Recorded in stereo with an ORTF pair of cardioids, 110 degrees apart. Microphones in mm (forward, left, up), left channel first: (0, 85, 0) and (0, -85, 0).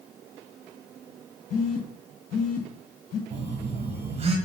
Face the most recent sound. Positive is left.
turn(degrees=-35)